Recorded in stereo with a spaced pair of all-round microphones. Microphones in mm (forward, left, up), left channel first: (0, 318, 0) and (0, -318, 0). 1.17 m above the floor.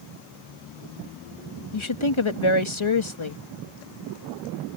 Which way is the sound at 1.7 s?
45° left (ahead or behind).